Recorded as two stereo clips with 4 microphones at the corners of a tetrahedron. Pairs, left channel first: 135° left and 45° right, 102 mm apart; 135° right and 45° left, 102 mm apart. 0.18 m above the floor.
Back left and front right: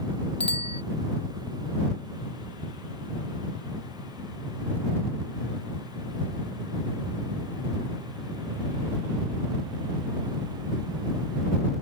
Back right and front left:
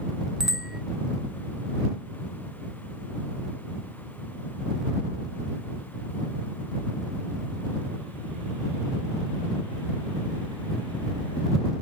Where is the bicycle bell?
130° left.